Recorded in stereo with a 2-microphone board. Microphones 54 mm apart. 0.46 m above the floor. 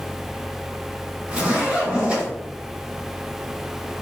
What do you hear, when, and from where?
1.3 s a zipper: 20° right (ahead or behind), 1.9 m